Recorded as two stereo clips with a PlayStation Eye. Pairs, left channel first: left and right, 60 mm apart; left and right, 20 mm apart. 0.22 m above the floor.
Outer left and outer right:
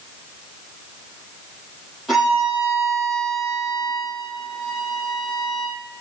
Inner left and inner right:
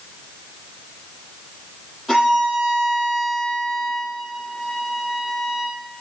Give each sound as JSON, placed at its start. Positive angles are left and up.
{"t": 2.1, "sound": "a violin", "side_deg": 0, "distance_m": 8.0}